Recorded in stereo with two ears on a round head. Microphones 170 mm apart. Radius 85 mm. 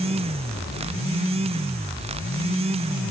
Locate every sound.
Only background noise.